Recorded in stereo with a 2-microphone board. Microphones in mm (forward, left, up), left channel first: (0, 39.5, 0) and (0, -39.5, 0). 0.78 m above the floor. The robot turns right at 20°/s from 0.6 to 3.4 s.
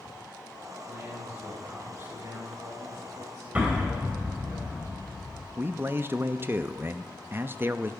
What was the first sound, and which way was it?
A man speaking, 155° right.